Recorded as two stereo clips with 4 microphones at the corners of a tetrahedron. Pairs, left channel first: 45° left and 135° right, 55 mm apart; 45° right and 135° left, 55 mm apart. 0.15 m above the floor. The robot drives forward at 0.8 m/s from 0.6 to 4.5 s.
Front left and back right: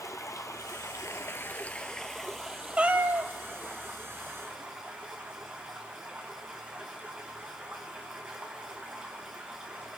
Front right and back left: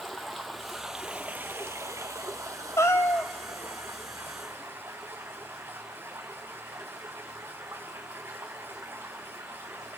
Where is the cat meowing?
65° right, 0.6 m; by 3.3 s 110° right, 0.6 m.